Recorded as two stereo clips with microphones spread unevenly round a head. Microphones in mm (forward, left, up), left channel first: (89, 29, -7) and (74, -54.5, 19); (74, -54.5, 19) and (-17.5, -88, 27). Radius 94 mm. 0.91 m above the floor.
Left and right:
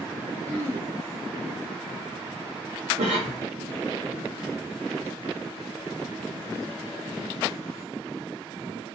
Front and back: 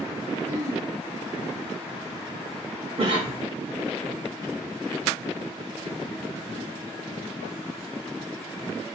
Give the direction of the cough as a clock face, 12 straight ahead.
4 o'clock.